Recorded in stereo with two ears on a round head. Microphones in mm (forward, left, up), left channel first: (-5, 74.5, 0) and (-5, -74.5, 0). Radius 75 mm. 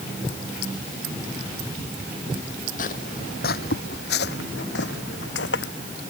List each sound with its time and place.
2.8 s footsteps: 50° left (ahead or behind); by 5.7 s 80° left